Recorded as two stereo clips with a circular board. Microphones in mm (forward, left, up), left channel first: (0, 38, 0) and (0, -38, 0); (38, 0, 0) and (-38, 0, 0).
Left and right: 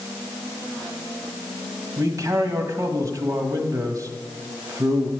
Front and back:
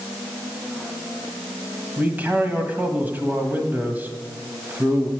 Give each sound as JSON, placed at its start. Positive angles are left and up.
{"t": 2.0, "sound": "a man speaking", "azimuth_deg": -120, "distance_m": 1.5}